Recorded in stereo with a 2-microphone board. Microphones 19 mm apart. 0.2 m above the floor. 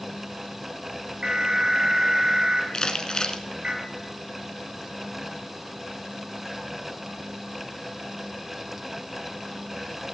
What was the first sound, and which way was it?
An alarm, 65° right (ahead or behind).